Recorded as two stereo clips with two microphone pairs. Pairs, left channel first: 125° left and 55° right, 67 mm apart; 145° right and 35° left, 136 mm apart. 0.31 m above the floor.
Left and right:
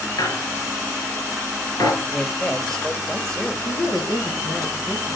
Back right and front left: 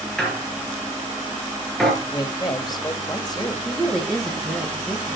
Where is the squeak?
130° left, 4 m.